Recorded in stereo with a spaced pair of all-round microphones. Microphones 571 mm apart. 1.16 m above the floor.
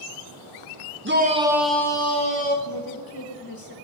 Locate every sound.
1.1 s a shout: 20° right (ahead or behind), 0.9 m; by 2.5 s 15° left (ahead or behind), 1.8 m
2.6 s a woman speaking: 40° left (ahead or behind), 1.2 m